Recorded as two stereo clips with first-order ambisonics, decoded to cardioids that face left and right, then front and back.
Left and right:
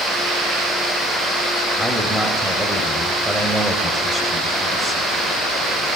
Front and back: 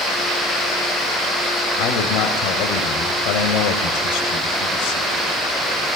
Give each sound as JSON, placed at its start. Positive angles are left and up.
{"t": 1.8, "sound": "a man speaking", "azimuth_deg": 0, "distance_m": 2.5}